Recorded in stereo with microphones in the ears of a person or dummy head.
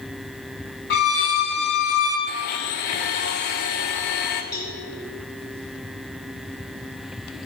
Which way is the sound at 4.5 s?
20° left (ahead or behind).